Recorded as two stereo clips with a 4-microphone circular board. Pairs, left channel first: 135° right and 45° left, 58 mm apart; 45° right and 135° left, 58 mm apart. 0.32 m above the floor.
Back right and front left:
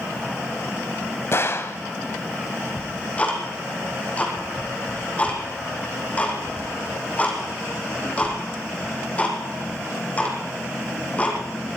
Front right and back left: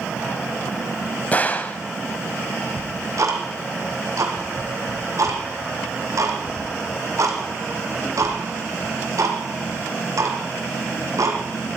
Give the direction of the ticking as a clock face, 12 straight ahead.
7 o'clock.